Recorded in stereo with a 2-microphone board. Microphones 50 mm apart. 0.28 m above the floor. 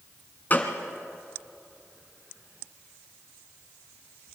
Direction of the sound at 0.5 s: 35° left (ahead or behind).